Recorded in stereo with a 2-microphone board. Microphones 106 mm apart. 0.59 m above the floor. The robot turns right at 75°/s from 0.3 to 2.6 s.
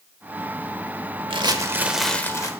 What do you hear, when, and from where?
1.3 s crumpling: 55° right, 0.9 m; by 2.5 s 35° left, 0.9 m